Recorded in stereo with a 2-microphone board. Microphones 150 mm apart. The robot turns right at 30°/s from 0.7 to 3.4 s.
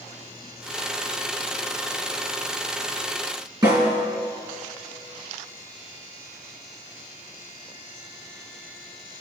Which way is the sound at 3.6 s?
30° right (ahead or behind).